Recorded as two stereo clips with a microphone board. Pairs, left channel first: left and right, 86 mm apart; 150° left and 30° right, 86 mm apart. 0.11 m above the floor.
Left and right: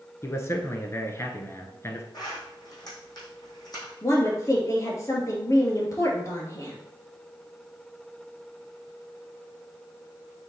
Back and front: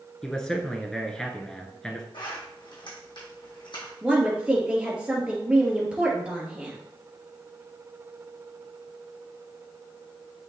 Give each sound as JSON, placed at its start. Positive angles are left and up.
{"t": 0.2, "sound": "a man speaking", "azimuth_deg": 70, "distance_m": 1.3}
{"t": 2.1, "sound": "a zipper", "azimuth_deg": 125, "distance_m": 3.5}
{"t": 4.0, "sound": "a woman speaking", "azimuth_deg": 45, "distance_m": 2.0}